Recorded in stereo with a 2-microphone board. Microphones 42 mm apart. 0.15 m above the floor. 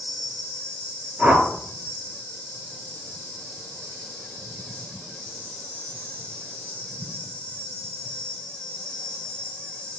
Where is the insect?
70° right (ahead or behind), 1.7 m.